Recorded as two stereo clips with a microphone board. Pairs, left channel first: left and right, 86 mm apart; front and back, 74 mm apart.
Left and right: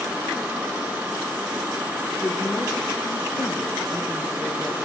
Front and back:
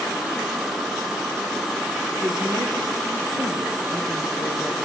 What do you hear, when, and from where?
2.2 s a woman speaking: straight behind, 4.5 m; by 4.8 s 165° left, 7 m